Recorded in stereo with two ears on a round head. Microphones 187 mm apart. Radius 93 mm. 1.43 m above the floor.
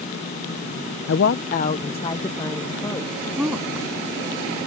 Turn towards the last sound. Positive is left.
turn(degrees=-5)  # may be behind; listen again after turning